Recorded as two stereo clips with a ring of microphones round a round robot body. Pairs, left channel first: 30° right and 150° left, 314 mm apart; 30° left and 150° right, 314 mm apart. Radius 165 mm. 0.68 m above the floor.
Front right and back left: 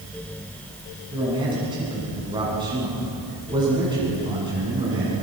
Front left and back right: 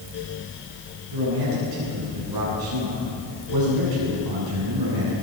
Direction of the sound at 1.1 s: 135° right.